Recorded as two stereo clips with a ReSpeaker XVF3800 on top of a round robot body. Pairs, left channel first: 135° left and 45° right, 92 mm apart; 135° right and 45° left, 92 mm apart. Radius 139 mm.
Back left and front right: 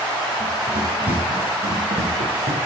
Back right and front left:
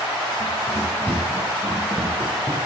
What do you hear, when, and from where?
0.4 s running footsteps: 25° right, 3 m; by 2.6 s 35° right, 2 m